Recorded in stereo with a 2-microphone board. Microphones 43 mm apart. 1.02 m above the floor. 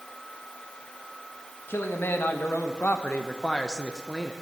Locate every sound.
1.7 s a man speaking: 70° left (ahead or behind), 1.5 m; by 4.3 s 15° right (ahead or behind), 0.8 m